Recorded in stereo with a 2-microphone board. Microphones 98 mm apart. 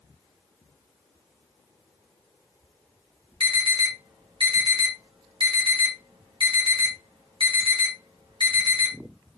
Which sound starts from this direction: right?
An alarm, at 3.4 s.